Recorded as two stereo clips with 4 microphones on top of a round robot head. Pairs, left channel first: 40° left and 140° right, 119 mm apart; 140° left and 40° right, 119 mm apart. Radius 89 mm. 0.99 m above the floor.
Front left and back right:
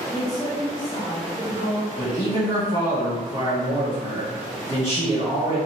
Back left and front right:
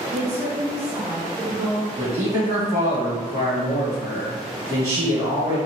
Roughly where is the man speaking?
Ahead.